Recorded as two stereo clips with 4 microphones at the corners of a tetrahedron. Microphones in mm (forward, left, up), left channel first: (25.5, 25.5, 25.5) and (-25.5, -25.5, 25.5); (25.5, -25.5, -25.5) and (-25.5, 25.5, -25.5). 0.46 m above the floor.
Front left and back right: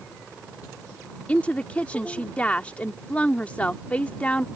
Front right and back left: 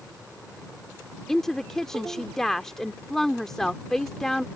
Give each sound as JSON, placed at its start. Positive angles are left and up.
{"t": 1.3, "sound": "a woman speaking", "azimuth_deg": 25}